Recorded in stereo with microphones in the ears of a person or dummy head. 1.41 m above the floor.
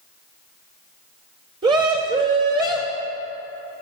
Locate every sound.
1.6 s a scream: 25° right (ahead or behind), 1.7 m